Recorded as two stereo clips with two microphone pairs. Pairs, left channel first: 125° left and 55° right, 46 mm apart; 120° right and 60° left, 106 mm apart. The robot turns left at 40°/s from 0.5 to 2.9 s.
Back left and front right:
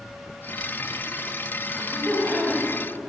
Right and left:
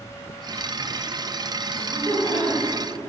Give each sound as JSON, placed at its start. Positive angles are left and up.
{"t": 1.7, "sound": "laughter", "azimuth_deg": -115, "distance_m": 2.0}